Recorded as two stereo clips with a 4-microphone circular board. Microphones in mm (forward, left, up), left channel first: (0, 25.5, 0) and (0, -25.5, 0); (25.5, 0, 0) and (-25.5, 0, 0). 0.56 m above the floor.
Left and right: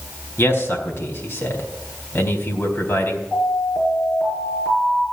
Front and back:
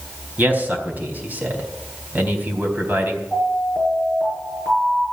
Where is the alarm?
140° left, 7.5 m.